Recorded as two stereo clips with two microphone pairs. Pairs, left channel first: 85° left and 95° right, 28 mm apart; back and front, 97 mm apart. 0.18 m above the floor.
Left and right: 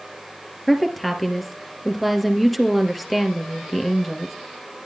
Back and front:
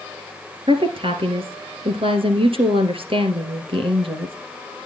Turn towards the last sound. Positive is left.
turn(degrees=-5)